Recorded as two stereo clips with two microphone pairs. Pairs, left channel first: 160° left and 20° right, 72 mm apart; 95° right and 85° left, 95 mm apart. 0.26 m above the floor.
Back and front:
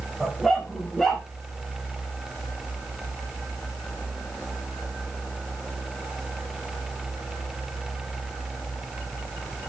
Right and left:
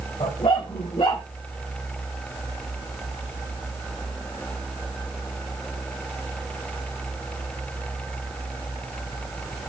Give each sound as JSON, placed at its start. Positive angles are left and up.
{"t": 0.2, "sound": "a dog barking", "azimuth_deg": -110, "distance_m": 6.0}